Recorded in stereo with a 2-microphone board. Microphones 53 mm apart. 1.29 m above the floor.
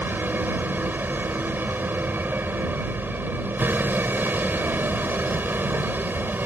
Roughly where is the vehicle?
Right.